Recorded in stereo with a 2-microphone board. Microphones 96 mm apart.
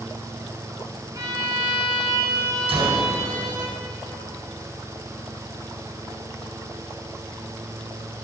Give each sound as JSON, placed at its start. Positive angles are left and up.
{"t": 1.1, "sound": "a violin", "side_deg": -35, "distance_m": 2.0}
{"t": 2.7, "sound": "a gunshot", "side_deg": -80, "distance_m": 3.5}